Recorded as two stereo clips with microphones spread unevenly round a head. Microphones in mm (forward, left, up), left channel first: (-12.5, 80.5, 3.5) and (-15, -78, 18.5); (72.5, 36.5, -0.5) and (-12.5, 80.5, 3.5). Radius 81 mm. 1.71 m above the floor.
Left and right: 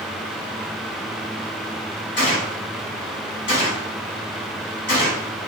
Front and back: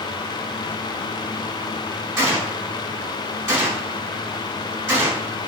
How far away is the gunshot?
About 2.0 m.